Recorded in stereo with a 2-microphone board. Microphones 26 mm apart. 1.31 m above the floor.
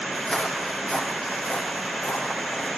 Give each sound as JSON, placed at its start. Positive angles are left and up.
{"t": 0.1, "sound": "footsteps", "side_deg": 45, "distance_m": 3.5}